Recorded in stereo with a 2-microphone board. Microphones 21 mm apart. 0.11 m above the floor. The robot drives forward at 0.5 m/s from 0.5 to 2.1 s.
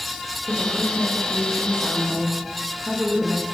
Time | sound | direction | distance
0.5 | a woman speaking | 35° right (ahead or behind) | 7.5 m